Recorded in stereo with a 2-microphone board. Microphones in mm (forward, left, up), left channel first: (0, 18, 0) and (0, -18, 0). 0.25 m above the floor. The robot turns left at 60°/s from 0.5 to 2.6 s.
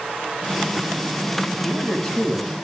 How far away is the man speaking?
About 1.9 m.